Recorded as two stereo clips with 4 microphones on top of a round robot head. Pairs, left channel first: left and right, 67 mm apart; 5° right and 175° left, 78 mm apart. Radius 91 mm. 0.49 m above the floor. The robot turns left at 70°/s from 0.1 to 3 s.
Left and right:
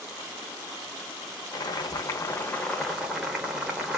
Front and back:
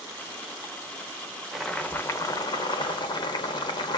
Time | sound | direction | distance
1.5 | boiling | 90° left | 0.8 m